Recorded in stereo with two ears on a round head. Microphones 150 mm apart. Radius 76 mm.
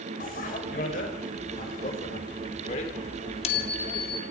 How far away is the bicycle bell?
About 5.5 m.